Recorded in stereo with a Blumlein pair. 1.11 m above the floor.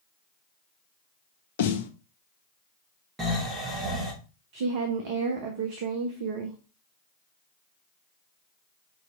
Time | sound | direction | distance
1.6 | a snare drum | 55° left | 0.5 m
3.2 | snoring | 15° right | 1.5 m
4.5 | a woman speaking | 50° right | 0.8 m